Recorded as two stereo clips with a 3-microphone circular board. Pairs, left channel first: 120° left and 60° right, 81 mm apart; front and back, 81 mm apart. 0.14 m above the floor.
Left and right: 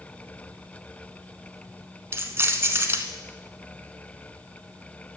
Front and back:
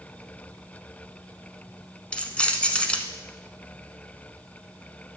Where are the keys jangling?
65° right, 0.9 m.